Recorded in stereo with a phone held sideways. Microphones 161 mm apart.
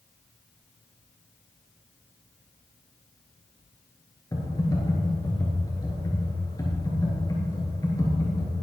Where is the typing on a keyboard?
20° left (ahead or behind), 5 m.